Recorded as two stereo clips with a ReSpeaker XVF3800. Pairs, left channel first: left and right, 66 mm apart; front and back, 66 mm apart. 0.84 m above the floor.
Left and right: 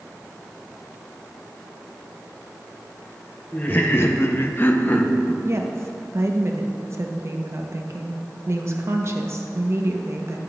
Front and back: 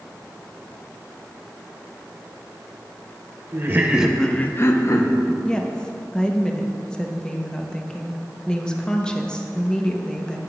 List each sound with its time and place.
3.5 s laughter: 150° left, 0.7 m; by 5.3 s 25° left, 1.2 m
5.4 s a woman speaking: 70° right, 0.8 m